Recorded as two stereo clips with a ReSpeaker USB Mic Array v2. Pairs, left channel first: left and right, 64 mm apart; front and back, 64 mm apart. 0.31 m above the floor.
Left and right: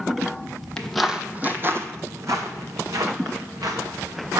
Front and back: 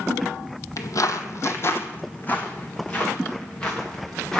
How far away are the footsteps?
About 0.6 m.